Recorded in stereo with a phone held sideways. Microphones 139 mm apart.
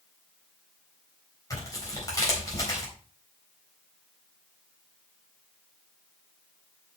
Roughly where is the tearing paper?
Left.